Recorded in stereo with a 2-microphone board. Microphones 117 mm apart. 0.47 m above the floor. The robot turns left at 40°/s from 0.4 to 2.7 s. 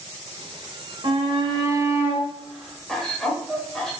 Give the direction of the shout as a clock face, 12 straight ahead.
4 o'clock.